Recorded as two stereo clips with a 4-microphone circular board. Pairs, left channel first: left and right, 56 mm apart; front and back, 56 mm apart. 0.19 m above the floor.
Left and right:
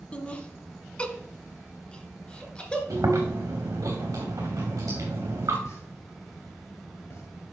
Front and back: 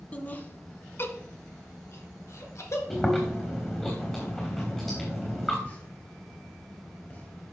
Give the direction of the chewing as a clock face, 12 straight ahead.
3 o'clock.